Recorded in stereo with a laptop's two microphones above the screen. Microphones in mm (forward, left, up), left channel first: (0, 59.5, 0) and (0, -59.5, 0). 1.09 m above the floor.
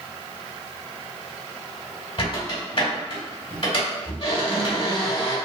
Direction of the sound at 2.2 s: 50° left (ahead or behind).